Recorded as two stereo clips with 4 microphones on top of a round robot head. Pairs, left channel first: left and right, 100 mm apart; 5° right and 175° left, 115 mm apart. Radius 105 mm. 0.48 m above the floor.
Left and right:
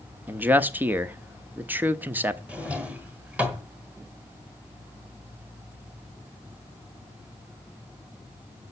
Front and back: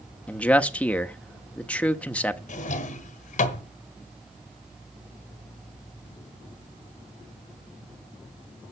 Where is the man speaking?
65° right, 1.1 m.